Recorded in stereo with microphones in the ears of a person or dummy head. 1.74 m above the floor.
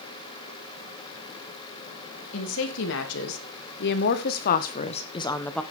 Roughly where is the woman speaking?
Left.